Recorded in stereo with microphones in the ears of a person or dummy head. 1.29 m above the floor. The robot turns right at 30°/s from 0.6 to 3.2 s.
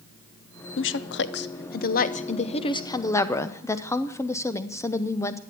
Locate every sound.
0.8 s a woman speaking: 90° left, 0.8 m; by 5.4 s 165° left, 0.8 m